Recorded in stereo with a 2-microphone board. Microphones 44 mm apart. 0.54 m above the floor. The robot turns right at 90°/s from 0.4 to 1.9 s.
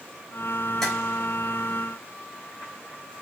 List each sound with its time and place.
0.8 s tapping: 10° left (ahead or behind), 4 m; by 0.9 s centre (ahead or behind), 4 m